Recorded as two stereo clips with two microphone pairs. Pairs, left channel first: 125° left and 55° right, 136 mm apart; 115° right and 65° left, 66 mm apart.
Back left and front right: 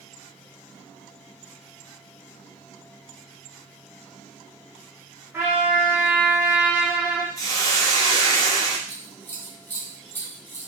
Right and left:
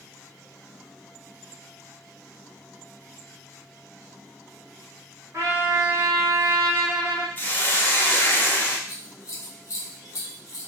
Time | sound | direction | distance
5.3 | a trumpet | 20° left | 0.8 m
7.4 | a hiss | 175° right | 0.5 m
8.9 | scissors | 155° right | 0.6 m